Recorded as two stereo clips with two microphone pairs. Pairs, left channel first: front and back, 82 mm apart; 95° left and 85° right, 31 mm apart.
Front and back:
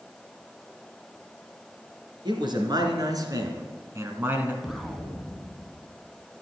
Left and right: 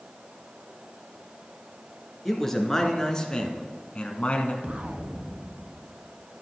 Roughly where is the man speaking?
Behind.